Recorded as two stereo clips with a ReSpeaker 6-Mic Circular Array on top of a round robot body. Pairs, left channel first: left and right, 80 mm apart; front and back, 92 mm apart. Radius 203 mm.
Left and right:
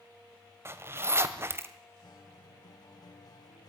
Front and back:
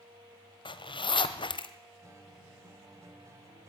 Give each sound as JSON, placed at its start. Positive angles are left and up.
{"t": 0.7, "sound": "a zipper", "azimuth_deg": -30, "distance_m": 1.1}
{"t": 2.0, "sound": "a guitar", "azimuth_deg": 125, "distance_m": 2.5}